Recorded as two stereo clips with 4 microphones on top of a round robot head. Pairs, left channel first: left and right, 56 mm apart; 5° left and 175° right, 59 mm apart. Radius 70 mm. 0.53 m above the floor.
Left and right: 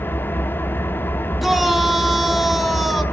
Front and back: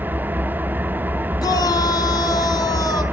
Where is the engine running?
135° left, 0.9 m.